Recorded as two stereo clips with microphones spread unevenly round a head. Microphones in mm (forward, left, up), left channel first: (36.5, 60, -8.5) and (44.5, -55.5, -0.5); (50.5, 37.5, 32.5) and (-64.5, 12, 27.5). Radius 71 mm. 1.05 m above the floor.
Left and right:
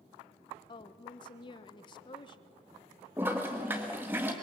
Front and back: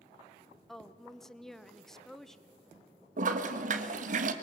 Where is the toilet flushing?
165° right, 1.4 m.